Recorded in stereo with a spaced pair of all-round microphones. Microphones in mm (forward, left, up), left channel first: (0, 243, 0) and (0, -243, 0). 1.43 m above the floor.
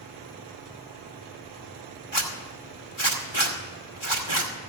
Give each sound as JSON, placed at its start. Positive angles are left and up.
{"t": 2.1, "sound": "a zipper", "side_deg": 65, "distance_m": 2.0}